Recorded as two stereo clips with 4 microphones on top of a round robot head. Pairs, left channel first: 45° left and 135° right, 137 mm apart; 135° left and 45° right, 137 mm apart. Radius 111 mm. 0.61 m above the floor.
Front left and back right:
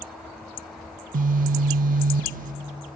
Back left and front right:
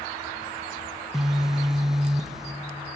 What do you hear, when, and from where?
1.1 s a phone buzzing: 135° right, 0.6 m